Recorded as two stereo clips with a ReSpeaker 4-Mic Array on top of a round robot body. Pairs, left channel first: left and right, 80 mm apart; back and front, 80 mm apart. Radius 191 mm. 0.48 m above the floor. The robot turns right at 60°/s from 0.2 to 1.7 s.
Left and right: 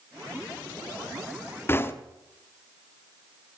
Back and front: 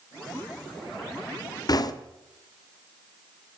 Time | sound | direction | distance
1.7 | knocking | 150° left | 1.1 m